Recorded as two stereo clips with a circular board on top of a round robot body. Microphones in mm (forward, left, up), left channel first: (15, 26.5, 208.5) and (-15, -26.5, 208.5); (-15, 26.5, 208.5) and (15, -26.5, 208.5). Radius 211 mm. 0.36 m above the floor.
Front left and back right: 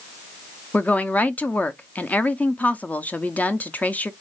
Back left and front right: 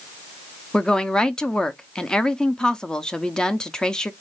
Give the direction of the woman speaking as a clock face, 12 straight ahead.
10 o'clock.